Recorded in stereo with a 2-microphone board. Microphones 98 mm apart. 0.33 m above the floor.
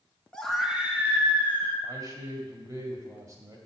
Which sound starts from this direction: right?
A man speaking, at 1.8 s.